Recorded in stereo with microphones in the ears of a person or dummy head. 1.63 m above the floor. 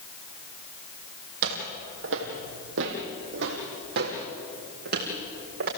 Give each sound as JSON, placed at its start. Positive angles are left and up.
{"t": 1.4, "sound": "footsteps", "side_deg": -60, "distance_m": 3.5}